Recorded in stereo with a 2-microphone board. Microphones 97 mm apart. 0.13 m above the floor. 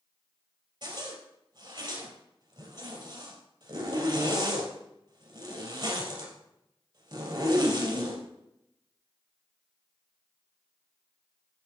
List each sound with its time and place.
0.8 s a zipper: 50° right (ahead or behind), 2 m